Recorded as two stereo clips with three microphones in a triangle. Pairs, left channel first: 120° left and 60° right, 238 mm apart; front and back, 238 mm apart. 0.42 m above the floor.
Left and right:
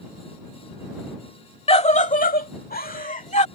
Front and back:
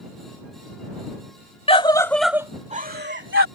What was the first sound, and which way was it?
A scream, 60° left.